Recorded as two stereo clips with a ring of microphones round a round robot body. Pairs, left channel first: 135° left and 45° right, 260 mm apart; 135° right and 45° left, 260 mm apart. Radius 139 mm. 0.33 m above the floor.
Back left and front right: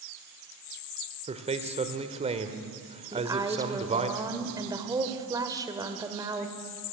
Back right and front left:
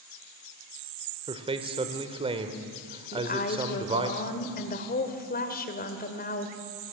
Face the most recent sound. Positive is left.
turn(degrees=-110)